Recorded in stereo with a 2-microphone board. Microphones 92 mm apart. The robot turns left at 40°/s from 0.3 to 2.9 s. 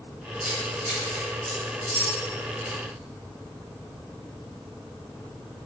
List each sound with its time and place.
0.4 s keys jangling: 30° right (ahead or behind), 1.7 m; by 2.8 s 55° left (ahead or behind), 1.7 m